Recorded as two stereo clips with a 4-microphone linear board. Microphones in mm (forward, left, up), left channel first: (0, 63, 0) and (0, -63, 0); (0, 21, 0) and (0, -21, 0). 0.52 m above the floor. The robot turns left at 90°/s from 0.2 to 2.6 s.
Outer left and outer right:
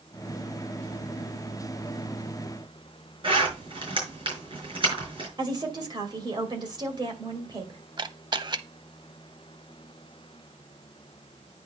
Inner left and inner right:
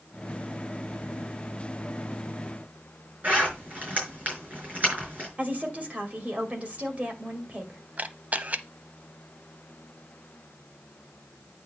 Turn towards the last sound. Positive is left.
turn(degrees=-40)  # may be behind; listen again after turning